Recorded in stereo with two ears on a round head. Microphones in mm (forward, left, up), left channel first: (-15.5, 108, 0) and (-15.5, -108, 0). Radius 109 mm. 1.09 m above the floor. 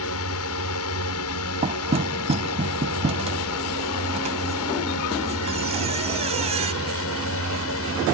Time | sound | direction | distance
0.0 | a drone | 65° left (ahead or behind) | ?
1.6 | knocking | 30° right (ahead or behind) | ?